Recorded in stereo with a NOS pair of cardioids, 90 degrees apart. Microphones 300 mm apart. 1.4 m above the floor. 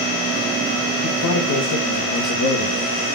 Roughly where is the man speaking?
Ahead left.